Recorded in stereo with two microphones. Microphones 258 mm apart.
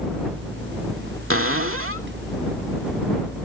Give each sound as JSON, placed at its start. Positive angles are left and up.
{"t": 1.3, "sound": "a cupboard door", "side_deg": -55}